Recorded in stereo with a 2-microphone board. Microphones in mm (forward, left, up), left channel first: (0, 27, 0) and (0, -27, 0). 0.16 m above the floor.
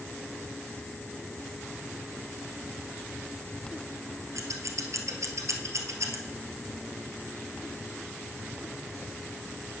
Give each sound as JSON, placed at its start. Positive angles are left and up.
{"t": 4.3, "sound": "scissors", "side_deg": -70, "distance_m": 1.4}